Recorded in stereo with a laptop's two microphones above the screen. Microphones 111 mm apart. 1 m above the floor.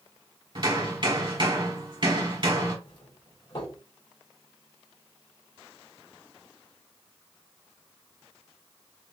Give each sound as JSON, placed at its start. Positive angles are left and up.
{"t": 0.6, "sound": "hammering", "side_deg": -45, "distance_m": 1.4}
{"t": 2.9, "sound": "a doorbell", "side_deg": 50, "distance_m": 2.5}